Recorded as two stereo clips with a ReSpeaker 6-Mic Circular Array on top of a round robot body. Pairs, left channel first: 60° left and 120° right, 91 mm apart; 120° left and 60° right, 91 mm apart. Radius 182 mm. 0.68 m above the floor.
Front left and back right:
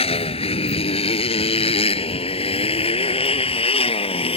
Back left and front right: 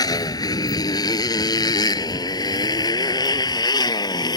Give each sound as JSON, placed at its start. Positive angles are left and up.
{"t": 0.0, "sound": "a motorcycle", "azimuth_deg": 70}